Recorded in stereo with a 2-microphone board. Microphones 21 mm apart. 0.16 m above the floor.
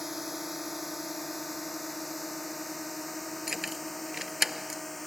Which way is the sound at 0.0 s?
5° right (ahead or behind).